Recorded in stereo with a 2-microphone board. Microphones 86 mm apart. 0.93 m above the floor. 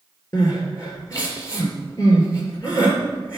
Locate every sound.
0.3 s crying: 35° left (ahead or behind), 3 m